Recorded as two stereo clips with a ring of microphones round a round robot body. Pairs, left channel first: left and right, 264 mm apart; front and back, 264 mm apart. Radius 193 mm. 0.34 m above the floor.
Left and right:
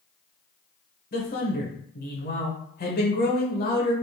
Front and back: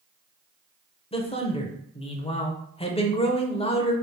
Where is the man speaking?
60° left, 1.1 m.